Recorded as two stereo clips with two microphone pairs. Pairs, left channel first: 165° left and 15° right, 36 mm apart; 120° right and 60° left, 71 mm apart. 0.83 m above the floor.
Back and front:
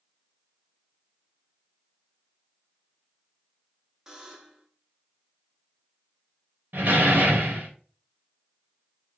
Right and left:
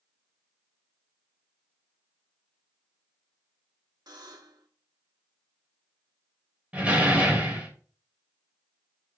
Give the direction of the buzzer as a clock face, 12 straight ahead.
10 o'clock.